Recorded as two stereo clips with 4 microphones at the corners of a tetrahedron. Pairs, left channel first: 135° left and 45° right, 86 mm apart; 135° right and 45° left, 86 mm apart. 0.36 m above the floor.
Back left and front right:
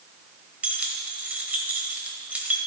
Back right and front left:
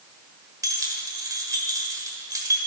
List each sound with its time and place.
0.6 s keys jangling: 20° left, 1.1 m